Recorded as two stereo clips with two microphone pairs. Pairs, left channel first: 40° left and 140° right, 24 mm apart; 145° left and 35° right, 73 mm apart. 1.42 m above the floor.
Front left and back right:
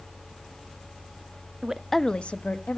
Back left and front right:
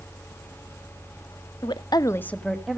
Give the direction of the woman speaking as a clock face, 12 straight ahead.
7 o'clock.